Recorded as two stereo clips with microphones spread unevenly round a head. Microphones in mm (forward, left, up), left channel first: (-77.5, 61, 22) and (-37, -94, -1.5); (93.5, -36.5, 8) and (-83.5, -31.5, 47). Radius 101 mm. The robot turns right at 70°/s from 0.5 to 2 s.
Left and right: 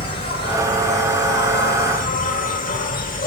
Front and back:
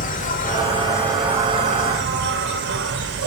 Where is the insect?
35° left, 0.9 m; by 3.3 s 140° left, 0.9 m.